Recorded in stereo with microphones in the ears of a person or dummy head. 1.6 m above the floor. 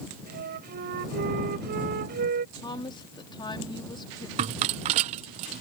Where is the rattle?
35° right (ahead or behind).